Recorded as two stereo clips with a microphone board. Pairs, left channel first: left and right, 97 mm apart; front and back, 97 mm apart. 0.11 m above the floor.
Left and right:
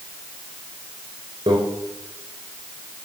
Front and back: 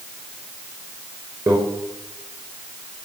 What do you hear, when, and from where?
1.5 s a microwave: 135° right, 5 m